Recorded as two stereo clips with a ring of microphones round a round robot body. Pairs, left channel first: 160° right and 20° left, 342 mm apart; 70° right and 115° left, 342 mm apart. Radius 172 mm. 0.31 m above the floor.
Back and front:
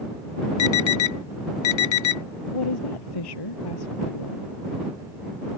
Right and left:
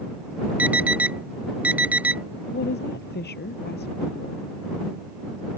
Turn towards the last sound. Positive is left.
turn(degrees=-130)